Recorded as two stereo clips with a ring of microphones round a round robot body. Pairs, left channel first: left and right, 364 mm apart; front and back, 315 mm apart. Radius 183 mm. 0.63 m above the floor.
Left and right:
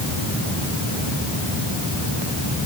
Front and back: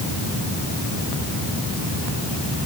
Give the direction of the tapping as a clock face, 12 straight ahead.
I don't hear tapping.